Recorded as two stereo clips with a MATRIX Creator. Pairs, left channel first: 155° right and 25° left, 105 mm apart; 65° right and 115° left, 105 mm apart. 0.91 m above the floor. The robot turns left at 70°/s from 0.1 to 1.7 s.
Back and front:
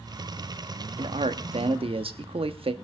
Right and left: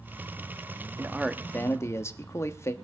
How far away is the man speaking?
About 1.1 m.